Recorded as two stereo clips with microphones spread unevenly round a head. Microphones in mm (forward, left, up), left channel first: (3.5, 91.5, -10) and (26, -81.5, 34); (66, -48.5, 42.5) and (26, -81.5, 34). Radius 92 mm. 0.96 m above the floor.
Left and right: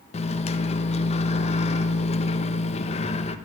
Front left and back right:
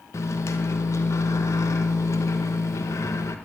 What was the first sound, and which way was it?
A microwave, 65° left.